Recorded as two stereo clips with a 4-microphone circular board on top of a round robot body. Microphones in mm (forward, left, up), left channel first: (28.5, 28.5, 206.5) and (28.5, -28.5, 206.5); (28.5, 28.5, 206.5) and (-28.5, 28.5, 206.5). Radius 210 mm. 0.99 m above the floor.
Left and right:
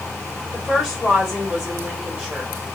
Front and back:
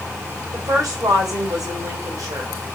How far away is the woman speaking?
About 2.5 m.